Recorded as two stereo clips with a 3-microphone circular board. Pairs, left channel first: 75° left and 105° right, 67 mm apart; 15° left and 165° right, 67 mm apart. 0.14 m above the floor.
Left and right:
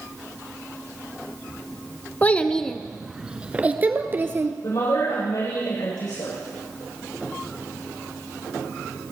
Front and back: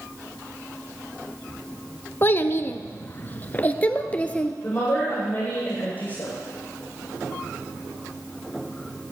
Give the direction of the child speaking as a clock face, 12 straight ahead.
11 o'clock.